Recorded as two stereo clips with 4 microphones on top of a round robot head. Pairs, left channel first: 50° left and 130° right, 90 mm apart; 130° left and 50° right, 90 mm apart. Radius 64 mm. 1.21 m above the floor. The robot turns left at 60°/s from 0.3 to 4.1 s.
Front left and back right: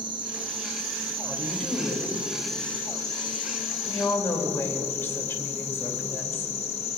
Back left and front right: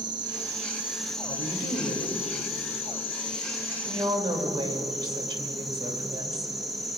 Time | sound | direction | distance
0.0 | an insect | 90° right | 1.1 m
1.2 | a woman speaking | 155° left | 2.5 m